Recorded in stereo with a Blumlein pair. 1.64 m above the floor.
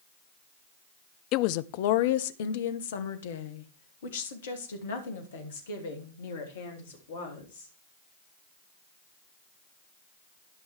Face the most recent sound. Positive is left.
turn(degrees=65)